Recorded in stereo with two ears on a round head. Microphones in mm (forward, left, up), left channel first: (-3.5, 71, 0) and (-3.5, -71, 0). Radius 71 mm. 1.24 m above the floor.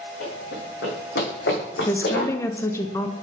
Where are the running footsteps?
65° left (ahead or behind), 3 m; by 2.3 s 70° left (ahead or behind), 4 m.